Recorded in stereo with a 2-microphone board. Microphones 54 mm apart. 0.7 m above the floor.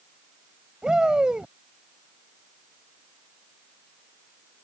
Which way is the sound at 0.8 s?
15° right (ahead or behind).